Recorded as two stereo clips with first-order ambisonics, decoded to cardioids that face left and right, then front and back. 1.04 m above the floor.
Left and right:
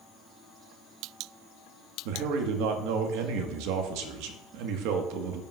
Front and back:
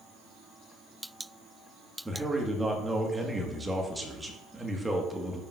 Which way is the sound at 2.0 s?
95° right.